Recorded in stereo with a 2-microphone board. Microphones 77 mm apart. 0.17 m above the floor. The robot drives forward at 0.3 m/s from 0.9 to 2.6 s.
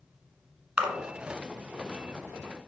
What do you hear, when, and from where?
0.8 s a splash: 15° right (ahead or behind), 1.2 m